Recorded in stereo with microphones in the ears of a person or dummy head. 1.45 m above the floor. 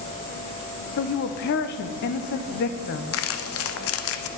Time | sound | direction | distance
1.0 | a woman speaking | 55° left (ahead or behind) | 0.9 m
3.1 | crumpling | 70° left (ahead or behind) | 0.9 m